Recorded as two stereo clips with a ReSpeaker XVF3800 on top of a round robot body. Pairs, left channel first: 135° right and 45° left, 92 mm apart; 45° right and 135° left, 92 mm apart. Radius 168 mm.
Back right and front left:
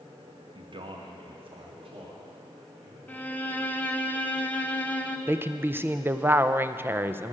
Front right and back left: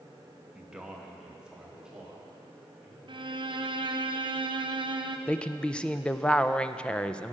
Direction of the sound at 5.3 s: 20° left.